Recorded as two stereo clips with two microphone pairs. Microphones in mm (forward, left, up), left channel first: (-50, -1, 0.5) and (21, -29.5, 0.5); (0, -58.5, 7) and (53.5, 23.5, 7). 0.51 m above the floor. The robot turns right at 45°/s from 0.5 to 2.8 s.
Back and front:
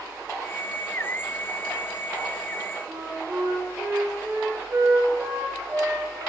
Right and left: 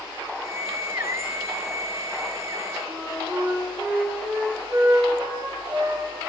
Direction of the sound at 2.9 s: 10° left.